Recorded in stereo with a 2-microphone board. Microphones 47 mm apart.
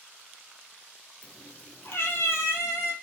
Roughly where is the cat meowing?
Left.